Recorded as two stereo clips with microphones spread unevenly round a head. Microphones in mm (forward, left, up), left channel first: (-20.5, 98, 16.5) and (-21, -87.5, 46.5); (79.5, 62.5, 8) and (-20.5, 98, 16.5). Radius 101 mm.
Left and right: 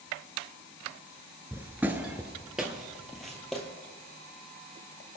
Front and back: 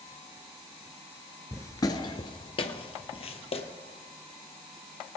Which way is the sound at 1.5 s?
60° right.